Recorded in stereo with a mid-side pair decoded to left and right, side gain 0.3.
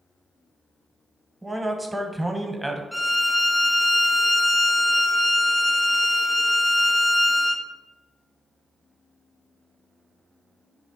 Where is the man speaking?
15° right, 0.8 m.